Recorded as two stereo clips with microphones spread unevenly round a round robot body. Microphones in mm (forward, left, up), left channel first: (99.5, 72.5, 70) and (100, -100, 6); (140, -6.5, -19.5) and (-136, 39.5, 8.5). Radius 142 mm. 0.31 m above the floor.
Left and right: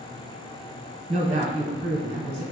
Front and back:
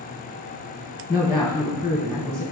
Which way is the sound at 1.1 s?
105° right.